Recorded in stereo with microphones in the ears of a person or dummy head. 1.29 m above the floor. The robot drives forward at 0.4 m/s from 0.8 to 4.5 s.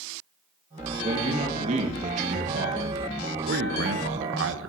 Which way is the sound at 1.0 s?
35° right (ahead or behind).